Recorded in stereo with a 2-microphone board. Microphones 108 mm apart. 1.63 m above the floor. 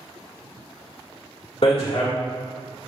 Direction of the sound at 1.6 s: 60° left (ahead or behind).